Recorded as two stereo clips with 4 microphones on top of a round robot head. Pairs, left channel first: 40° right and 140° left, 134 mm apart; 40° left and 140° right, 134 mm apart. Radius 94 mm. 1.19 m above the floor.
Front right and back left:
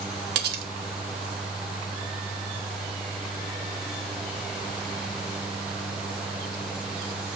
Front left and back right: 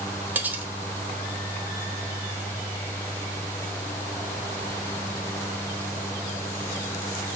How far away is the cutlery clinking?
About 1.0 m.